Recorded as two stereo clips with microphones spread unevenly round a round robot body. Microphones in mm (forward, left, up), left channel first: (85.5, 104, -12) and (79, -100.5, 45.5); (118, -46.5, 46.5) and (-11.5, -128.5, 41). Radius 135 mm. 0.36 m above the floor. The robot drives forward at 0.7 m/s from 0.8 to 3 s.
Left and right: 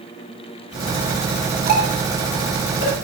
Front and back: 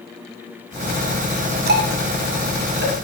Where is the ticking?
155° right, 1.8 m; by 2.9 s 165° right, 2.5 m.